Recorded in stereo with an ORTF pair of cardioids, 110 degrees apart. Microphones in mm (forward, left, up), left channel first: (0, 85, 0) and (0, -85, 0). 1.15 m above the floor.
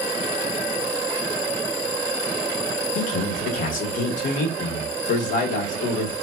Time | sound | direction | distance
3.0 | a man speaking | 55° left | 1.3 m